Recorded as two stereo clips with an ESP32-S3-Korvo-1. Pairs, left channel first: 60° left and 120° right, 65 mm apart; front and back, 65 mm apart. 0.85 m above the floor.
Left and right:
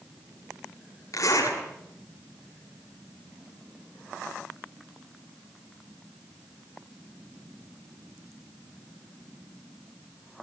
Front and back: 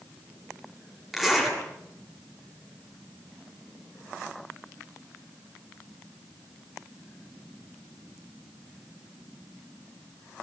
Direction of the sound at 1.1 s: 90° left.